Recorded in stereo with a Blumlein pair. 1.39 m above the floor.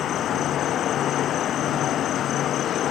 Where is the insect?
30° left.